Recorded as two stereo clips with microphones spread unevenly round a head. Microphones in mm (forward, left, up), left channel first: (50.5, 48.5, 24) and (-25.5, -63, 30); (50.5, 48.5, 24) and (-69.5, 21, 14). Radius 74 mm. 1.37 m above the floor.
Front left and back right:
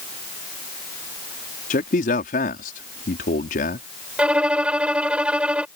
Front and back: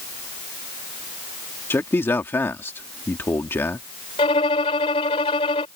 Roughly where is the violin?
Ahead right.